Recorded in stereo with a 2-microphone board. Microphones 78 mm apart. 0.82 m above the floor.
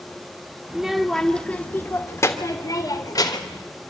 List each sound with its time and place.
0.7 s a child speaking: 10° right (ahead or behind), 1.4 m; by 3.6 s 55° left (ahead or behind), 2.5 m